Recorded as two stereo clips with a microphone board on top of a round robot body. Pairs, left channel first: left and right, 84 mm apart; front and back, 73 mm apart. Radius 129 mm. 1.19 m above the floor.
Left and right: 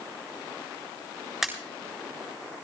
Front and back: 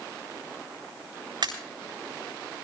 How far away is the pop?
About 8 m.